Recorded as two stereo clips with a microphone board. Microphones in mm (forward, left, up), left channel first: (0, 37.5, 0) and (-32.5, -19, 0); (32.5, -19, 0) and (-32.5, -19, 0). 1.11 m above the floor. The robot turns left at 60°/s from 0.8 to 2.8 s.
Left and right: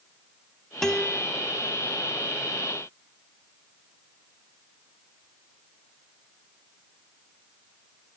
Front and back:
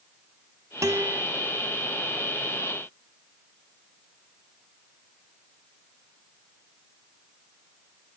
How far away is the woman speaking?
I don't hear a woman speaking.